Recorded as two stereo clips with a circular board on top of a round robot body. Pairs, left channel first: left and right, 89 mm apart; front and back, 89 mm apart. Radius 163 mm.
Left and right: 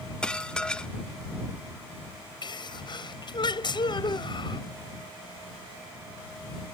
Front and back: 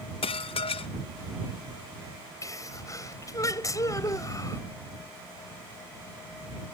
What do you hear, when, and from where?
0.2 s dishes clattering: 10° left
2.4 s a sneeze: 55° left